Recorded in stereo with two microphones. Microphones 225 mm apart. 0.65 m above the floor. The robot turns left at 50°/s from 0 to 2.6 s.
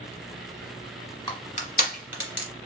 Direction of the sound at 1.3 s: 20° left (ahead or behind).